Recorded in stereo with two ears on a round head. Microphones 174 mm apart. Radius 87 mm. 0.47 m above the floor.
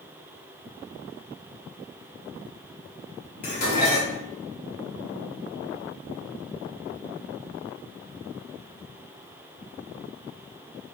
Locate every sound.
3.4 s dishes clattering: 45° left (ahead or behind), 1.7 m